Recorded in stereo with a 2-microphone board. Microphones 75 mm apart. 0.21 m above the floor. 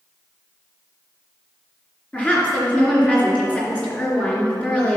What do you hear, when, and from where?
2.1 s a woman speaking: 20° left (ahead or behind), 3 m